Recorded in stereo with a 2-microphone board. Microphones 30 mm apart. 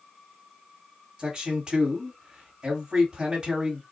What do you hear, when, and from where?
1.2 s a man speaking: 30° right (ahead or behind), 1.5 m